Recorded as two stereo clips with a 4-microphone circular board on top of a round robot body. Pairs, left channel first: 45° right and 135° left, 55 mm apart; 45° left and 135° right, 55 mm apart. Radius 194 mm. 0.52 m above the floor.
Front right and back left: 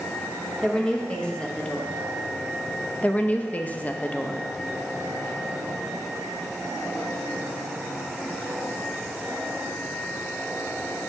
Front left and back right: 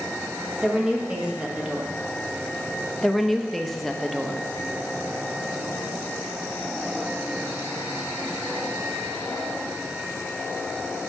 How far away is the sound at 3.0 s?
About 0.7 m.